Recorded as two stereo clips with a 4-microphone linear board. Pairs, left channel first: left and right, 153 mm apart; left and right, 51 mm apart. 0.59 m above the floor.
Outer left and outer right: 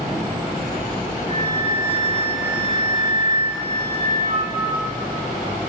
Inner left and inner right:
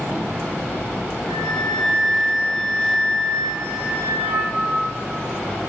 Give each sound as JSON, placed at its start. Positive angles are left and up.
{"t": 1.3, "sound": "a flute", "side_deg": -50, "distance_m": 1.3}